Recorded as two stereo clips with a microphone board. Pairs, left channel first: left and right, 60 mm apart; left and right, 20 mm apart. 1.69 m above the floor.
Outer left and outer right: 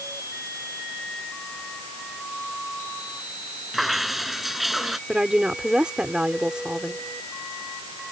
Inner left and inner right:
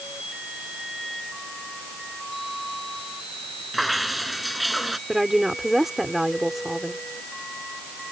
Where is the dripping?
5° right (ahead or behind).